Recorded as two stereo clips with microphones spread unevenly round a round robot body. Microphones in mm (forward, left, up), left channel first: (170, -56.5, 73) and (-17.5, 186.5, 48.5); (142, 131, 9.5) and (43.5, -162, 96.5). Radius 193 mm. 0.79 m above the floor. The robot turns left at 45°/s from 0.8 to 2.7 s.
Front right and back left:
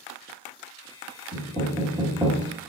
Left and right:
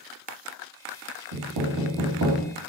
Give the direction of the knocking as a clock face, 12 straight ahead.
4 o'clock.